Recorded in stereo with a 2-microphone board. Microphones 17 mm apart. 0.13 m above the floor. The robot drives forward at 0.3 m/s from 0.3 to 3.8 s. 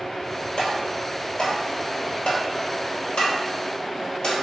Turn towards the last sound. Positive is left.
turn(degrees=65)  # may be behind; listen again after turning